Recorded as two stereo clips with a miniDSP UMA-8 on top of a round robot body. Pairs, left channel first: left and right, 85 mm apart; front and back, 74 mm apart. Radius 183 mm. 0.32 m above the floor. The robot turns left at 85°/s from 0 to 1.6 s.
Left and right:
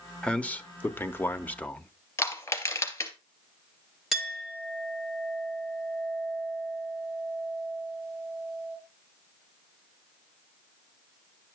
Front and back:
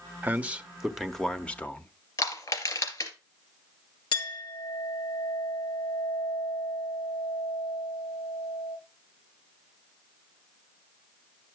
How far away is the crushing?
About 3.5 m.